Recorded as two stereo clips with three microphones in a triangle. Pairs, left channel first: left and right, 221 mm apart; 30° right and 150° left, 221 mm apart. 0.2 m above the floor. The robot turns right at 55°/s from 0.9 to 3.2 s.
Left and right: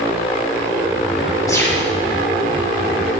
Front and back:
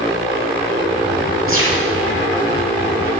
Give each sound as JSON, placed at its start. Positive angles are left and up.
{"t": 1.5, "sound": "a gunshot", "azimuth_deg": 165, "distance_m": 3.0}